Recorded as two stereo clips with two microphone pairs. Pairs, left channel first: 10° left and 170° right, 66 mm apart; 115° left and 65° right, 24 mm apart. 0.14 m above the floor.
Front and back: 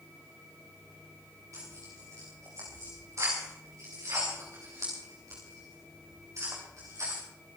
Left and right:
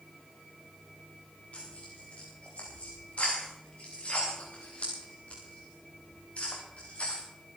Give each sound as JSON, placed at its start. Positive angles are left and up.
{"t": 1.5, "sound": "tearing paper", "azimuth_deg": 150, "distance_m": 5.0}